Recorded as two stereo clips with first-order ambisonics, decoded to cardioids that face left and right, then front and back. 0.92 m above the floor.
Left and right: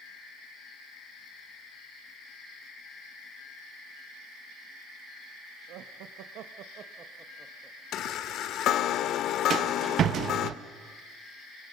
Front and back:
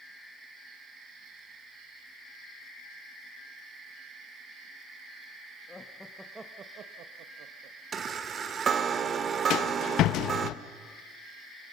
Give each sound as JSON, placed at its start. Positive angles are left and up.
{"t": 5.7, "sound": "laughter", "azimuth_deg": -75, "distance_m": 1.3}
{"t": 7.9, "sound": "a chime", "azimuth_deg": 125, "distance_m": 0.7}
{"t": 9.5, "sound": "a rattle", "azimuth_deg": -40, "distance_m": 0.6}